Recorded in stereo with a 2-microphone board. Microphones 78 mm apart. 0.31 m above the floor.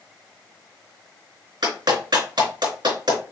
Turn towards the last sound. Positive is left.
turn(degrees=-75)  # may be behind; listen again after turning